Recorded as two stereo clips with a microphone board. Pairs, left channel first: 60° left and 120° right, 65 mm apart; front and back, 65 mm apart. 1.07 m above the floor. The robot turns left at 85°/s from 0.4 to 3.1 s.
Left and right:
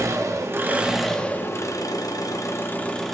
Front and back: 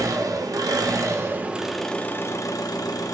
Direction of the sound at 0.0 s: 155° right.